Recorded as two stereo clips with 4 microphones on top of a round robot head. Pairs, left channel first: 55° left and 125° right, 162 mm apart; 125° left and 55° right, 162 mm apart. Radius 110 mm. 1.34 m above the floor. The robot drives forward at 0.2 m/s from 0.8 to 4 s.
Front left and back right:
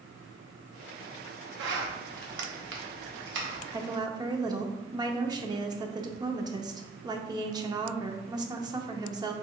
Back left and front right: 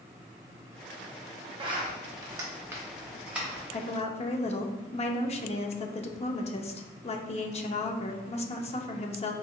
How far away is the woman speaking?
About 0.5 m.